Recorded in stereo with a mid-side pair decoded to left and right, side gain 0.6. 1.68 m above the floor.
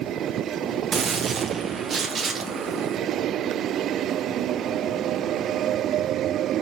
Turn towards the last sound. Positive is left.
turn(degrees=-40)